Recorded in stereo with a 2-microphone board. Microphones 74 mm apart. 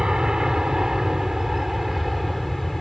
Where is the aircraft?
10° right (ahead or behind); by 2.8 s centre (ahead or behind).